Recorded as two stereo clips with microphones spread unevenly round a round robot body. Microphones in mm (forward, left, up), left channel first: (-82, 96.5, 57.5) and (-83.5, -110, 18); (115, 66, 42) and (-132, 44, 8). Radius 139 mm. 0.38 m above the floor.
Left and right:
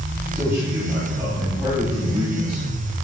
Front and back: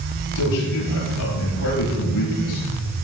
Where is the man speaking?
10° right, 9 m; by 3.0 s 20° right, 8 m.